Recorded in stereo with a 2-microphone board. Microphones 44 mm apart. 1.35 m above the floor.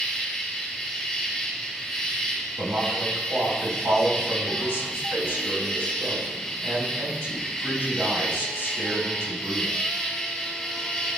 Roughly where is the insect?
Centre.